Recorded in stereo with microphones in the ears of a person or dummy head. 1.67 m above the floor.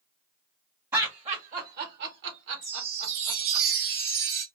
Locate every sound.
0.9 s laughter: 20° right (ahead or behind), 1.1 m; by 3.6 s 75° right (ahead or behind), 2.5 m
2.6 s a chime: 60° right (ahead or behind), 1.1 m